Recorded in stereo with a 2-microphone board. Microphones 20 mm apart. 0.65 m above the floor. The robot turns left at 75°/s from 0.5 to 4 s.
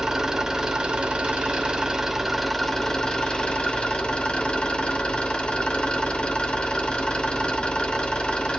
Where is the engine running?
30° right, 1.9 m; by 8.6 s 65° left, 1.9 m.